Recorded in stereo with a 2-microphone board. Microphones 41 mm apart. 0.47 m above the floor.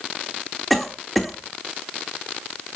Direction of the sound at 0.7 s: 5° left (ahead or behind).